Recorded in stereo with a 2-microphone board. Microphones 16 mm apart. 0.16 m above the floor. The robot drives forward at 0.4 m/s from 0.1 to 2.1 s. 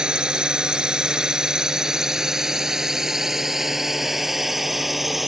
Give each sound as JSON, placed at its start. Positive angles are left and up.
{"t": 0.0, "sound": "a drone", "side_deg": -60}